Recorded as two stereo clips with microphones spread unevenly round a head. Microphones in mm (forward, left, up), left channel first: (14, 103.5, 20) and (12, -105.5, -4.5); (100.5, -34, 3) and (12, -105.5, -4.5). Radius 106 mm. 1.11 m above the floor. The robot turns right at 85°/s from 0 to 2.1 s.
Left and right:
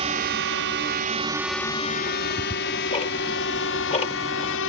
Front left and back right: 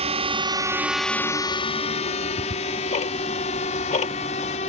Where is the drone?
150° right; by 4.7 s 75° left.